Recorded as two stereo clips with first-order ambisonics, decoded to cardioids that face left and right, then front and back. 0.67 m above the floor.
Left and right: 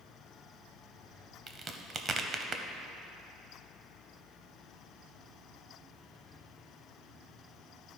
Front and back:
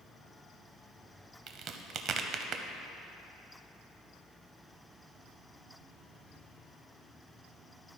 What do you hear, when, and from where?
1.5 s a crack: 145° right, 0.5 m